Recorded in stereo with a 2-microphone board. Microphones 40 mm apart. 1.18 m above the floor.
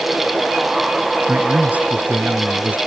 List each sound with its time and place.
1.3 s a man speaking: 40° right (ahead or behind); by 2.8 s 35° right (ahead or behind)